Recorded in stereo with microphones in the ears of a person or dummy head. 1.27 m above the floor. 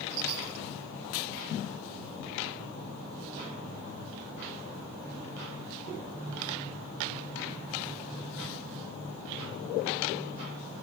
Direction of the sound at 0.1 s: 80° right.